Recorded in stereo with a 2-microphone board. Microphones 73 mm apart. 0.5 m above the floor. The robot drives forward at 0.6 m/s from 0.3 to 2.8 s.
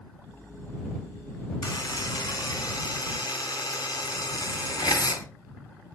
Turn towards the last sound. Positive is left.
turn(degrees=70)  # may be behind; listen again after turning